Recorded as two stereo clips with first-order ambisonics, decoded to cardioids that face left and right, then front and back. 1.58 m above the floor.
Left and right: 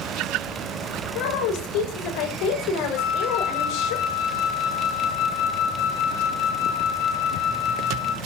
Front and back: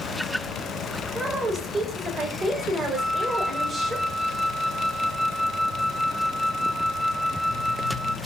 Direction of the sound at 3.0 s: 95° left.